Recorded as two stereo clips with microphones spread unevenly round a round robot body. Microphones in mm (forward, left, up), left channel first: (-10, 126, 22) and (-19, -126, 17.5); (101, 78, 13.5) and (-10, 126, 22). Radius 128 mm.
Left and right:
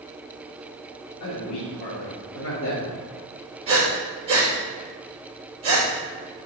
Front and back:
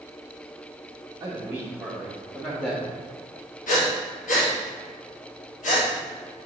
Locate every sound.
1.2 s a man speaking: 95° left, 1.6 m; by 2.9 s 40° left, 1.8 m
3.7 s breathing: 25° right, 2.5 m